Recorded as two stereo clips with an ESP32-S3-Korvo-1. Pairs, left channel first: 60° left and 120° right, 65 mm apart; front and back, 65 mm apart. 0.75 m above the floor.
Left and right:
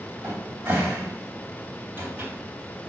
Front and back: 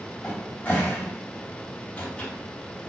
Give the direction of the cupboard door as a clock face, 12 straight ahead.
2 o'clock.